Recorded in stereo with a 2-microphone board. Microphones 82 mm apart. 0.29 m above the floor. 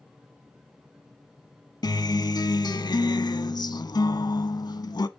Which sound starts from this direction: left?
A guitar, at 1.8 s.